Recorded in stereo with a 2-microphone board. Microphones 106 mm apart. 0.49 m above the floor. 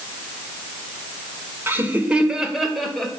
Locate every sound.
1.7 s laughter: 20° right (ahead or behind), 1.7 m; by 3.1 s 5° left (ahead or behind), 2.5 m